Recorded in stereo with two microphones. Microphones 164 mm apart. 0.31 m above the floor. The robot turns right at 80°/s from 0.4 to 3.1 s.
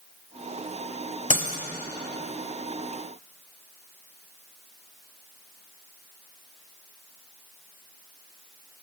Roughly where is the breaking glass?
Left.